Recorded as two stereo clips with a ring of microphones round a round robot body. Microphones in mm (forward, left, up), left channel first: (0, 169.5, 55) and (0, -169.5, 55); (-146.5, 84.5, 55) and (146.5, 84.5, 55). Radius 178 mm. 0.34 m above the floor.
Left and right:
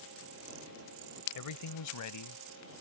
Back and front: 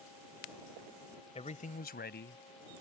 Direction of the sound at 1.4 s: 110° left.